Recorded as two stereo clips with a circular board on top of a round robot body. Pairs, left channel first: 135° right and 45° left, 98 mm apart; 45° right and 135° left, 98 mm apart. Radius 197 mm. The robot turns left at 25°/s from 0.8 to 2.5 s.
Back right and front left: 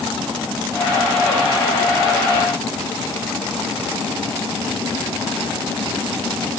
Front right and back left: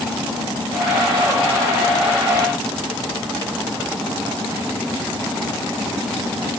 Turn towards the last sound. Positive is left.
No sound to turn to.